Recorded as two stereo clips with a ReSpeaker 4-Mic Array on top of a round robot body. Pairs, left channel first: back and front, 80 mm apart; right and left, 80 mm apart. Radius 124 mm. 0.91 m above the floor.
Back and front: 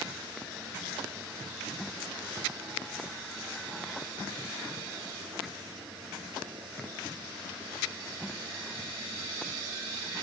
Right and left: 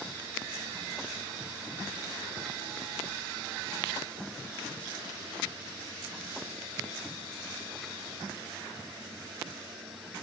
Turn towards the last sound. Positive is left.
No sound to turn to.